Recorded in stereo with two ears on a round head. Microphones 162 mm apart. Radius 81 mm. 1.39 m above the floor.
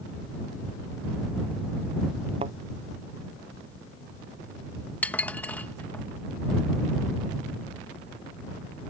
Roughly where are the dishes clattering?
Centre.